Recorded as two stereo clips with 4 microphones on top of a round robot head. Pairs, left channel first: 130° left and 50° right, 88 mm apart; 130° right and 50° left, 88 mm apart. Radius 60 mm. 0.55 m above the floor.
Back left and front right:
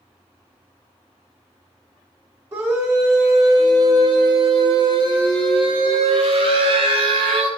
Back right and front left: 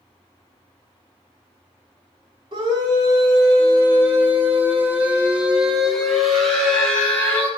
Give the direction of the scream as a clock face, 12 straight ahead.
12 o'clock.